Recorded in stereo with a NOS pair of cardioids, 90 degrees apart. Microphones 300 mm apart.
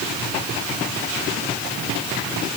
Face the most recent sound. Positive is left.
No sound to turn to.